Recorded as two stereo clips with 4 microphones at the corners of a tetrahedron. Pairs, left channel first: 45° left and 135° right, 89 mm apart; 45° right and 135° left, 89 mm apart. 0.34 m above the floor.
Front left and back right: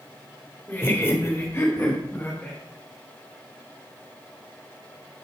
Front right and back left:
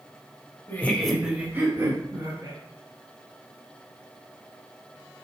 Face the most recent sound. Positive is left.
turn(degrees=110)